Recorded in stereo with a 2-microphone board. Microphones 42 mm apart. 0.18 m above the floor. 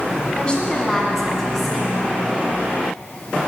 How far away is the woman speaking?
About 1.4 m.